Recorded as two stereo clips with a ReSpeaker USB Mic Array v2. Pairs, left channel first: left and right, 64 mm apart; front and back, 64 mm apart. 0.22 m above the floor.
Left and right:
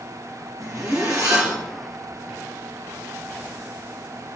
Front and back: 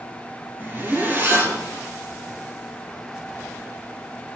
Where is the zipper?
120° right, 3 m.